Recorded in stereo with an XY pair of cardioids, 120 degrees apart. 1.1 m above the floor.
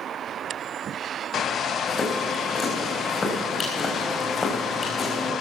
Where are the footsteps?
35° left, 4.5 m.